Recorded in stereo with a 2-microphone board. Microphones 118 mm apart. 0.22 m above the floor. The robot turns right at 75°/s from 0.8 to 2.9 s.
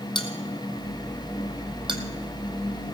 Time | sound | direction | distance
0.1 | a bell | 40° left (ahead or behind) | 1.5 m